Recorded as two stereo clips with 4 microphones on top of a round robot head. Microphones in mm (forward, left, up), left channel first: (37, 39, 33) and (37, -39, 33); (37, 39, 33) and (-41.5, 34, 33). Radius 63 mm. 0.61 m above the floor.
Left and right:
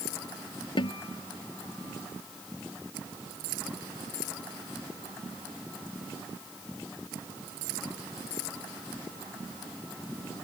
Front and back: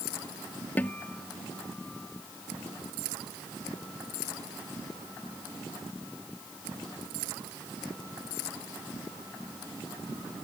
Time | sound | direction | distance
0.8 | a guitar | 75° left | ?